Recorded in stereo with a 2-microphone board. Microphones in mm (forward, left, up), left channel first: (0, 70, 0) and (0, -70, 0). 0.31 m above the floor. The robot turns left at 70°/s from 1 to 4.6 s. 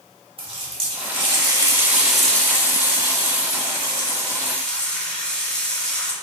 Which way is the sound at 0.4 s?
95° right.